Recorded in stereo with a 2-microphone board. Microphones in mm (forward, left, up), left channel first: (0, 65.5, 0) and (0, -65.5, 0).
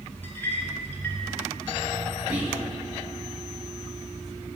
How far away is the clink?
About 1.3 m.